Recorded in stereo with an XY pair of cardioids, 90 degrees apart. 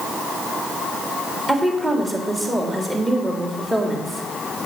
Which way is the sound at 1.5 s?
20° right.